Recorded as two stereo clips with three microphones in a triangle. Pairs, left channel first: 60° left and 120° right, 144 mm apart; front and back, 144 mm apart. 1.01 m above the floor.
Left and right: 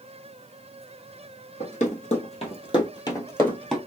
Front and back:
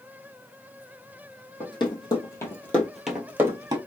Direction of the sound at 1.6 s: 50° left.